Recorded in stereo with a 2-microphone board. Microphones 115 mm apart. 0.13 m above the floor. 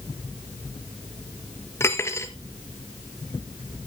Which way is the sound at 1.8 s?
20° left (ahead or behind).